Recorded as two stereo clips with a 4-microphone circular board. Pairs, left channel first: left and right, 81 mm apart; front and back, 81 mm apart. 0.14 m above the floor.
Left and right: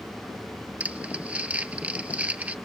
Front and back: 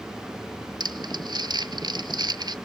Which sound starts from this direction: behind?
Crumpling, at 0.8 s.